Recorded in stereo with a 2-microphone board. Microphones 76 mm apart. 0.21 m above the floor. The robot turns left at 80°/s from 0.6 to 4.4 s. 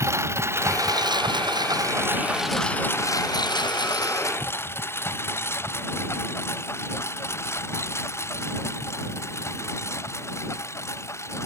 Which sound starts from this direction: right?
A lawn mower, at 0.0 s.